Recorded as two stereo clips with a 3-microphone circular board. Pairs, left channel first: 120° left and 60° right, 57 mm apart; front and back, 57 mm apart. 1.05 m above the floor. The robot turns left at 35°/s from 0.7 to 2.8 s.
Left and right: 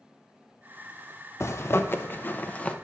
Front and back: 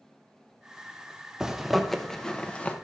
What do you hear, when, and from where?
1.4 s a zipper: 100° left, 0.6 m; by 2.8 s 55° left, 0.6 m